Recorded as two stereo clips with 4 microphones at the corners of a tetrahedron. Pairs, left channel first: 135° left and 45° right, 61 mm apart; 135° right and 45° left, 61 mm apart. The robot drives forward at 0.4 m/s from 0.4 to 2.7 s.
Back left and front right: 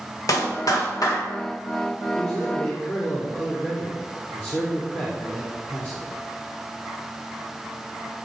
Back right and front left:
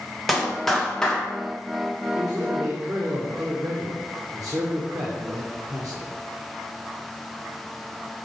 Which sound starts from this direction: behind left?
A clap, at 0.3 s.